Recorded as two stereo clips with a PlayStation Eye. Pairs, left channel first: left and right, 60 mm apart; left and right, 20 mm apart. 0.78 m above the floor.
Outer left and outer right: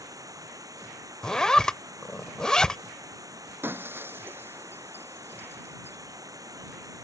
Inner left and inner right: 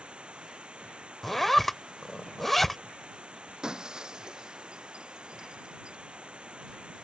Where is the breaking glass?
40° right (ahead or behind).